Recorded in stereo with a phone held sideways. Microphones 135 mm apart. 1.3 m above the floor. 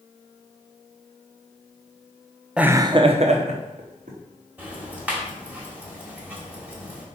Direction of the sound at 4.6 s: 10° right (ahead or behind).